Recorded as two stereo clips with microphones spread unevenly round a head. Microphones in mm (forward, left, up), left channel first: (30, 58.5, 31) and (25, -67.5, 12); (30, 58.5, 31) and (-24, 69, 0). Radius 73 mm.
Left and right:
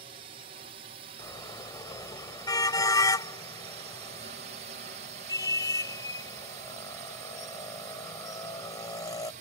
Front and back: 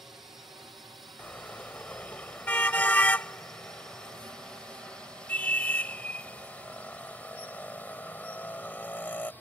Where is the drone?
125° right; by 9.4 s 95° right.